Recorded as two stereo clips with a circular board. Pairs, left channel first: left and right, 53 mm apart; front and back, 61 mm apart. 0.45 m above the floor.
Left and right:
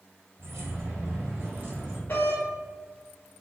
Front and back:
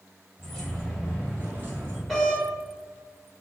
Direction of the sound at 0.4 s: 80° right.